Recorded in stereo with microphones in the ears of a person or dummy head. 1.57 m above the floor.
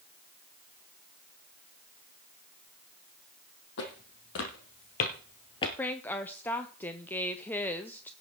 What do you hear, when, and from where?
3.8 s footsteps: 65° left (ahead or behind), 3.5 m; by 5.7 s 25° left (ahead or behind), 1.7 m
5.8 s a woman speaking: 10° left (ahead or behind), 0.7 m